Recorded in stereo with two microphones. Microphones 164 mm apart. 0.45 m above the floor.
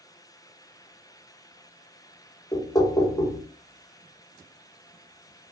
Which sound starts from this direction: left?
Knocking, at 2.5 s.